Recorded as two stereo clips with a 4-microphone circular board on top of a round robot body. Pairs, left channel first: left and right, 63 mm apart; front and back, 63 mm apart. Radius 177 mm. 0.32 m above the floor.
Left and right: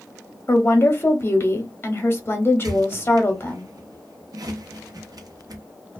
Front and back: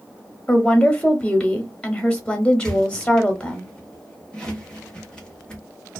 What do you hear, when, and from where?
0.5 s a woman speaking: 65° left, 1.0 m
2.6 s a squeak: 75° right, 1.0 m